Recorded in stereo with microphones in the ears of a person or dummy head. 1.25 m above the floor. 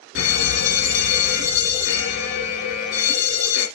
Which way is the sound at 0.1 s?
60° left (ahead or behind).